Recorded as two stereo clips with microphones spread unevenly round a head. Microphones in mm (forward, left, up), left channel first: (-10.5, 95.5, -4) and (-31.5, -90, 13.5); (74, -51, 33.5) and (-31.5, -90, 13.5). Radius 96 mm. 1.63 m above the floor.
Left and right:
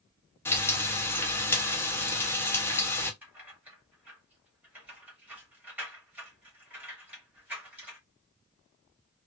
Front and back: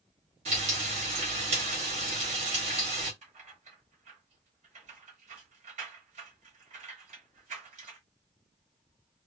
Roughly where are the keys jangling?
Behind.